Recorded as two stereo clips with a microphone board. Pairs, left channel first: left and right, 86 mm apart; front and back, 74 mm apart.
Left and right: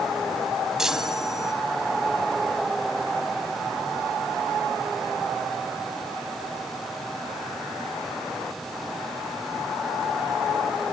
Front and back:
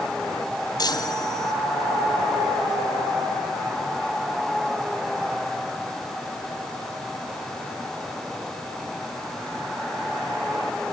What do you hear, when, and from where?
0.8 s a chime: 5° right, 2.5 m